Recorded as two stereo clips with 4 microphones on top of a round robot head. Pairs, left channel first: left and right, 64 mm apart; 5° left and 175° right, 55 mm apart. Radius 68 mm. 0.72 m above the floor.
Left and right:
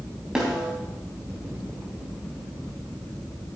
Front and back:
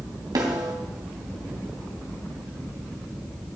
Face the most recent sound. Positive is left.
turn(degrees=-170)